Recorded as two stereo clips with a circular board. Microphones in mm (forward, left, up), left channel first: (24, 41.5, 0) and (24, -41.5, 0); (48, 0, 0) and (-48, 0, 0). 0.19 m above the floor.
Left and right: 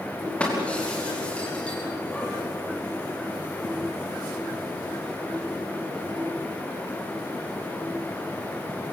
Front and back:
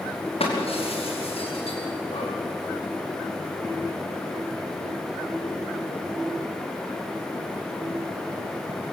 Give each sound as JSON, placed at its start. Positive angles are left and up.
{"t": 0.4, "sound": "breaking glass", "azimuth_deg": 15, "distance_m": 6.0}